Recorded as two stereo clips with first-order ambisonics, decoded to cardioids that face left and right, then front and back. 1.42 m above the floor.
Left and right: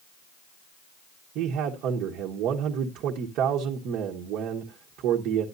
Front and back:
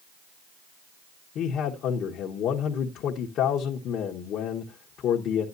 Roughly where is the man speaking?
Ahead right.